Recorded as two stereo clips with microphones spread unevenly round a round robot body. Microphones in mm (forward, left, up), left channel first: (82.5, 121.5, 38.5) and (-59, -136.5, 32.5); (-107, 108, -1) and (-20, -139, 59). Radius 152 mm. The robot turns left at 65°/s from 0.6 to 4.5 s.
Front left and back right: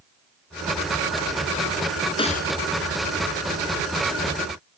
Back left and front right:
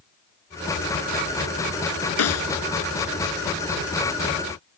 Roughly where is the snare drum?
Behind left.